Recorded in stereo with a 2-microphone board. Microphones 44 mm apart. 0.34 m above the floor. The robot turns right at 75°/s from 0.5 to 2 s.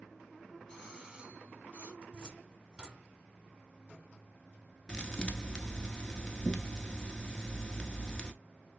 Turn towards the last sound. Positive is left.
turn(degrees=20)  # may be behind; listen again after turning